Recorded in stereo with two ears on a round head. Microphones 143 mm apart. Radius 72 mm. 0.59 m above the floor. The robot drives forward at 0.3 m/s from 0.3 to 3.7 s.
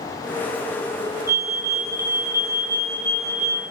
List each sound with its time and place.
1.3 s a fire alarm: 20° right (ahead or behind), 4 m; by 3.6 s 15° right (ahead or behind), 4.5 m